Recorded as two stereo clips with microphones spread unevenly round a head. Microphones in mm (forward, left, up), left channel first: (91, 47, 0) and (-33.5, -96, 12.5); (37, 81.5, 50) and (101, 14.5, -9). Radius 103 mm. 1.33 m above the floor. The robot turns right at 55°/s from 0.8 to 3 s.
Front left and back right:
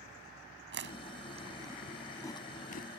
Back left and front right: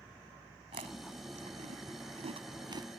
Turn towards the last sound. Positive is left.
turn(degrees=15)